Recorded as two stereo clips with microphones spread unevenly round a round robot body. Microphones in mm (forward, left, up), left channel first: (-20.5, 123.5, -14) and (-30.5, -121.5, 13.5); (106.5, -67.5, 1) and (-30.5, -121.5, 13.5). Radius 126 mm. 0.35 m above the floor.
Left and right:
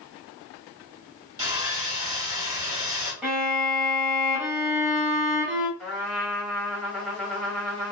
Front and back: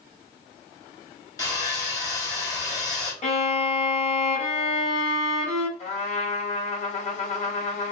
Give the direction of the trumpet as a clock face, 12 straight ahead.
12 o'clock.